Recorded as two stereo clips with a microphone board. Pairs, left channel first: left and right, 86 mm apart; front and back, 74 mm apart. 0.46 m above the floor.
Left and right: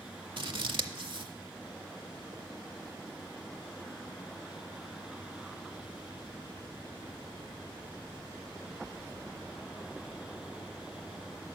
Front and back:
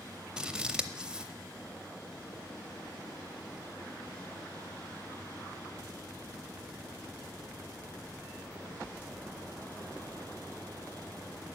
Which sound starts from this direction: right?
Scissors, at 0.4 s.